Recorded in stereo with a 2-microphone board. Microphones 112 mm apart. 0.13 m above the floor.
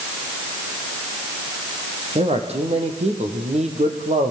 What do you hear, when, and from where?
2.1 s a man speaking: 55° right (ahead or behind), 6 m; by 4.3 s 70° right (ahead or behind), 5 m